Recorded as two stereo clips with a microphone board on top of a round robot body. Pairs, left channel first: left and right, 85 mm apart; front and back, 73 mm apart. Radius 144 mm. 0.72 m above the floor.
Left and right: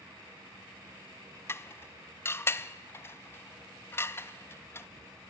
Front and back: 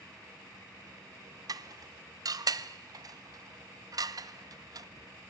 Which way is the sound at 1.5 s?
150° left.